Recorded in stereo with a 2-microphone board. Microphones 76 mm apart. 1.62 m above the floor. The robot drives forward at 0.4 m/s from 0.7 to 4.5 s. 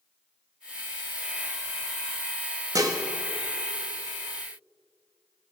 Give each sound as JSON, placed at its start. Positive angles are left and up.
{"t": 2.8, "sound": "dishes clattering", "side_deg": -50, "distance_m": 1.3}